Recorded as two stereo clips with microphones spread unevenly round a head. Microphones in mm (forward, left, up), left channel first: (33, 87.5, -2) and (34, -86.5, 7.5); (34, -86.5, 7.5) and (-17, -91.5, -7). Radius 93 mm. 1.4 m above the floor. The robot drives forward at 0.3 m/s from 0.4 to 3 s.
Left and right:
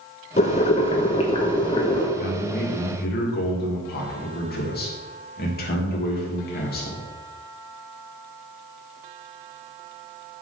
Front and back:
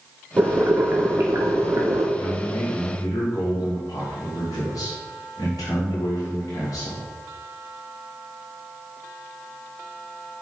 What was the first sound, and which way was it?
Boiling, 135° left.